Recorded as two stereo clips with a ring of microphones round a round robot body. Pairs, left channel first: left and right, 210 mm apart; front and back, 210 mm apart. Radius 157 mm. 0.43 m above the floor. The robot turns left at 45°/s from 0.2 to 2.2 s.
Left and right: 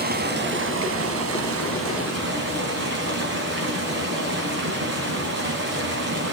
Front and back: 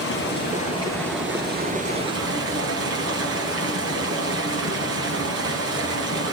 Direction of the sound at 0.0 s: 45° right.